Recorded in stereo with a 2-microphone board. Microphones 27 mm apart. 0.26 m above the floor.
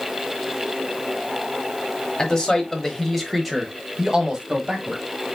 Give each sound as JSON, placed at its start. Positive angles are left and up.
{"t": 2.2, "sound": "a man speaking", "side_deg": 20, "distance_m": 1.2}